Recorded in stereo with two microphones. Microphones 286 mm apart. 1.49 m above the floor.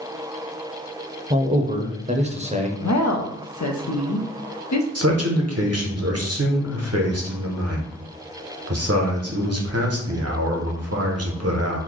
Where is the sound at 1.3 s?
25° right (ahead or behind), 0.6 m.